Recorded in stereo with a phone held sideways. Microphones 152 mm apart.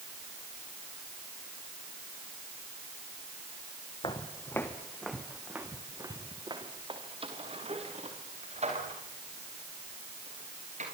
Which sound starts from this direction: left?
Footsteps, at 4.0 s.